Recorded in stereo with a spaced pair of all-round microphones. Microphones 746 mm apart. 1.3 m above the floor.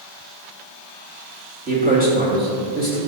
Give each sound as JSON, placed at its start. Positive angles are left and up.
{"t": 1.7, "sound": "a man speaking", "side_deg": -10, "distance_m": 3.5}